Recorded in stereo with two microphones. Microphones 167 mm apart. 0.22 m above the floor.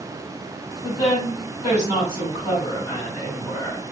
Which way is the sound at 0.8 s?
35° left (ahead or behind).